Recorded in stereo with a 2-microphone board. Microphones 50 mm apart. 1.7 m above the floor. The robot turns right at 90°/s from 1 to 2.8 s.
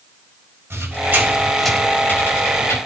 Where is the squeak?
55° right (ahead or behind), 4.5 m; by 2.8 s 70° left (ahead or behind), 4.5 m.